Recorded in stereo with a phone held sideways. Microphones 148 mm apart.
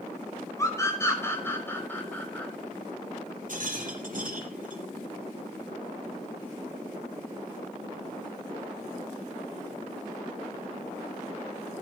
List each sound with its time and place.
0.6 s a scream: 20° left (ahead or behind), 6 m; by 2.5 s 10° left (ahead or behind), 6.5 m
3.5 s a rattle: 65° right (ahead or behind), 4 m